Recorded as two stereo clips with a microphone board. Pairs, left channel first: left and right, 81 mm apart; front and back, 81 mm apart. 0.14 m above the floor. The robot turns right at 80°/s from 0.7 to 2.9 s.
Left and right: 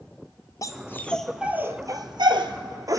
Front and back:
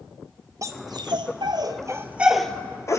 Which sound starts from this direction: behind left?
A dog barking, at 0.6 s.